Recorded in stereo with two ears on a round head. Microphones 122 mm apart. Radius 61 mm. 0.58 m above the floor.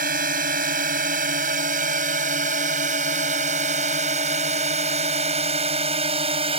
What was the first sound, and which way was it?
A drone, 70° right (ahead or behind).